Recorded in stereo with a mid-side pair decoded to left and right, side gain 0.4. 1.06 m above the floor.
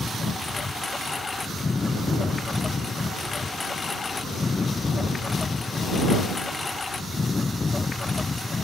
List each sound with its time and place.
0.0 s a lawn mower: 35° left